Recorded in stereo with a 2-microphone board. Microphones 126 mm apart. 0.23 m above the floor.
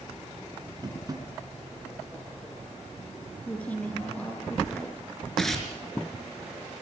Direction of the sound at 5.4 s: Centre (ahead or behind).